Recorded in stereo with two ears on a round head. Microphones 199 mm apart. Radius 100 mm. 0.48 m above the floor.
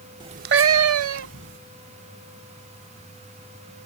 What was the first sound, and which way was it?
A cat meowing, 20° right (ahead or behind).